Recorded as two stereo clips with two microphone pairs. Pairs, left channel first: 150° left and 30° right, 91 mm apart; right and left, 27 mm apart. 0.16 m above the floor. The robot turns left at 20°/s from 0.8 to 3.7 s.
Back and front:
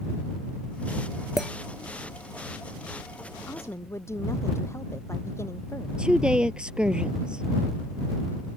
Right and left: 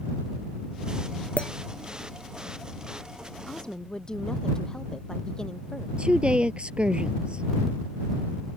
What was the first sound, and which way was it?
A clink, 115° right.